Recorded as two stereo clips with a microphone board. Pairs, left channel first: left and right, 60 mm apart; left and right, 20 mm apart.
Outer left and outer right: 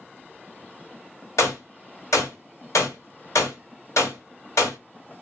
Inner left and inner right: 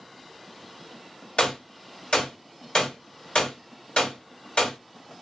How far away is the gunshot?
About 1.1 m.